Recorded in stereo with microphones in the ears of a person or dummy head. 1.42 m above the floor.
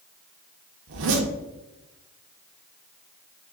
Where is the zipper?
65° right (ahead or behind), 0.7 m.